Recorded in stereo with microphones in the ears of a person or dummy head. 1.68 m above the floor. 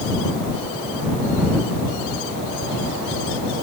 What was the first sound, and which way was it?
Only background noise.